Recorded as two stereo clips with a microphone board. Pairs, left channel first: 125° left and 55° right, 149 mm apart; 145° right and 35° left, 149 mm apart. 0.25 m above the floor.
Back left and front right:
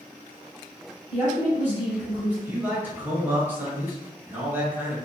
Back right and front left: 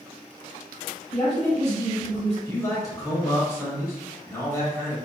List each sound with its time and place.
1.1 s a woman speaking: 130° right, 1.5 m
2.5 s a man speaking: 115° right, 0.9 m